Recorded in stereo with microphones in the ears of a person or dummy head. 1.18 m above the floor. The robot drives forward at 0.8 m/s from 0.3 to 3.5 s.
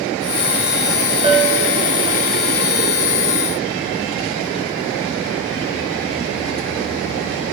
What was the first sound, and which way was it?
A bell, 30° right (ahead or behind).